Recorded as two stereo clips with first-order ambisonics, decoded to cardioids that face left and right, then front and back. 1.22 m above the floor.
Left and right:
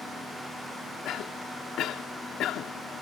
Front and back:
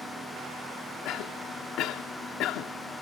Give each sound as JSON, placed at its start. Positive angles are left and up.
{"t": 1.1, "sound": "a cough", "azimuth_deg": 40}